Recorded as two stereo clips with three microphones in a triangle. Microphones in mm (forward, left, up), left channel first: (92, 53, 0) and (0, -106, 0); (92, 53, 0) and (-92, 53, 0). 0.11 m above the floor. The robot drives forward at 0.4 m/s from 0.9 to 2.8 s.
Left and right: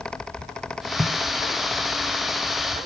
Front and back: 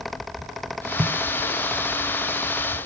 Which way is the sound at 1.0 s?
175° right.